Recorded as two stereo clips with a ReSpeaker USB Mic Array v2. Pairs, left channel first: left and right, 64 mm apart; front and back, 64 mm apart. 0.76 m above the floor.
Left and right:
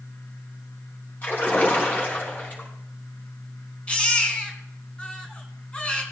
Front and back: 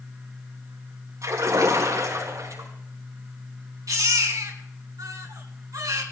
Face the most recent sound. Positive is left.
turn(degrees=165)